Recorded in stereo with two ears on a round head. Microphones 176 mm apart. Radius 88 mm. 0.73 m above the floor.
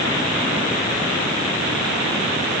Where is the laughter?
No laughter in this recording.